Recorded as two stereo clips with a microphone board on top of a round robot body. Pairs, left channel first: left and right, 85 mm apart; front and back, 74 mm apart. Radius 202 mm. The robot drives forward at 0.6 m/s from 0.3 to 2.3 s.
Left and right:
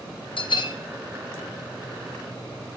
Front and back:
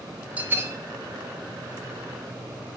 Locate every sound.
0.4 s a bell: 110° left, 0.8 m; by 0.8 s 125° left, 0.9 m